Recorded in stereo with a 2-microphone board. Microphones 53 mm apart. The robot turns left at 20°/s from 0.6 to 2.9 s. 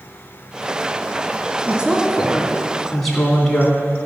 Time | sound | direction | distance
1.7 | a woman speaking | 20° right (ahead or behind) | 2.5 m